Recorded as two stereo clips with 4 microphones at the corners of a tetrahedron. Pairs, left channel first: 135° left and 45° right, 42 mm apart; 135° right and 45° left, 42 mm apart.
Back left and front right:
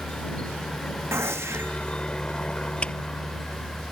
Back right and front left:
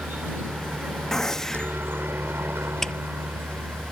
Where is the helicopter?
75° left; by 3.9 s 65° left.